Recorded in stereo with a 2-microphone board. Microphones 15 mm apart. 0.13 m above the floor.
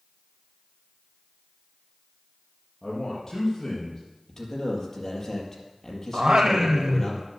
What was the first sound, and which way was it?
A man speaking, 20° left (ahead or behind).